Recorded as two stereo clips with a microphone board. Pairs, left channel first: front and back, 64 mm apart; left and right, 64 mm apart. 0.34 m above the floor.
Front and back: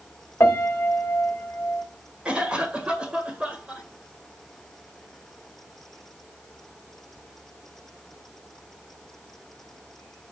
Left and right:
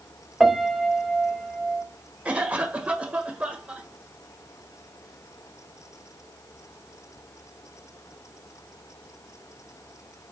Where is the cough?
130° right, 1.6 m.